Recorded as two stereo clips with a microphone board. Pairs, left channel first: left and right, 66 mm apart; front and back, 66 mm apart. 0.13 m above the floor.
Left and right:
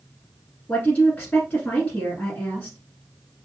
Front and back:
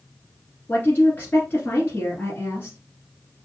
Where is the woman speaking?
35° left, 1.3 m.